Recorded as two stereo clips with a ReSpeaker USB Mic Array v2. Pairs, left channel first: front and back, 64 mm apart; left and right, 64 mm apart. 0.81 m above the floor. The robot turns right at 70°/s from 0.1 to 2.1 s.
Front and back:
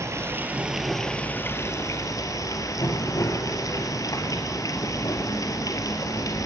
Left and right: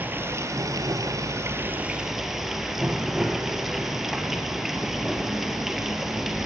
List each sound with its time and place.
0.0 s running water: 145° right, 1.8 m; by 6.5 s 5° right, 1.8 m